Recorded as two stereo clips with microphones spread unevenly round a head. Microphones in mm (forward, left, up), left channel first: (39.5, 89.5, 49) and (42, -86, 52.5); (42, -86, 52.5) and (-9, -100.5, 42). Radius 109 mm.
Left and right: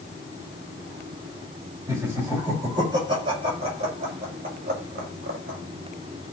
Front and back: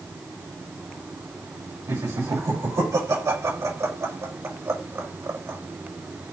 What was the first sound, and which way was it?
Laughter, 165° right.